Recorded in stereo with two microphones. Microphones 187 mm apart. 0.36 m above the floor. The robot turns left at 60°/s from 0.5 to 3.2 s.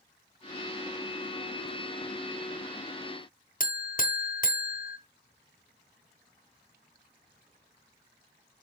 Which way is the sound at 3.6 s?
50° left (ahead or behind).